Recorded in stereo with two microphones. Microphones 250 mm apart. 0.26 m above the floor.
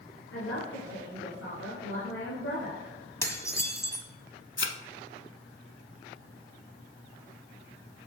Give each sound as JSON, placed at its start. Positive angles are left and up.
{"t": 0.3, "sound": "a man speaking", "side_deg": 60, "distance_m": 3.5}
{"t": 3.2, "sound": "dishes clattering", "side_deg": 10, "distance_m": 1.3}
{"t": 4.6, "sound": "a thud", "side_deg": 55, "distance_m": 0.8}